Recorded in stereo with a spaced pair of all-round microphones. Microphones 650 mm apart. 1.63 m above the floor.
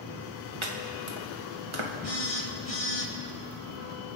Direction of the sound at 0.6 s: 45° right (ahead or behind).